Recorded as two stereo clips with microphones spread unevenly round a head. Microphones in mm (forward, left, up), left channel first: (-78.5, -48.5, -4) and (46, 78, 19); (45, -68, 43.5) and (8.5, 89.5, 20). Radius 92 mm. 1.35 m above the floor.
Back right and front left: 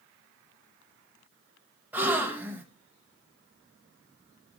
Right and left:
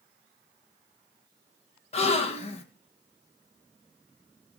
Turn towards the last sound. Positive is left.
turn(degrees=-30)